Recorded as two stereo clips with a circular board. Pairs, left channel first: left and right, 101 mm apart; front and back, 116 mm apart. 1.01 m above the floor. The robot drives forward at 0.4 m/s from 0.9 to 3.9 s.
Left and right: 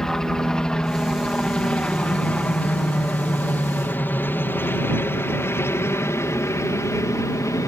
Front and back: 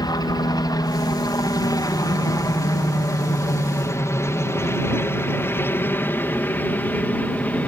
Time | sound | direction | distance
0.0 | a helicopter | 10° left | ?